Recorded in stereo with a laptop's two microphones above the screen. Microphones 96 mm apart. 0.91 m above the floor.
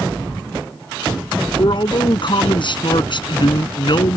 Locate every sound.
1.6 s a man speaking: 55° left (ahead or behind)